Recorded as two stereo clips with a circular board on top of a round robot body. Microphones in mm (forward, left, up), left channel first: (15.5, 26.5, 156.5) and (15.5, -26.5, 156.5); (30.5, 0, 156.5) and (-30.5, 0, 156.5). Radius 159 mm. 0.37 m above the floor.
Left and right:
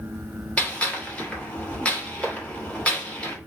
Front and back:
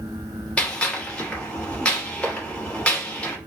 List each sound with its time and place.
0.6 s a gunshot: 55° left, 1.5 m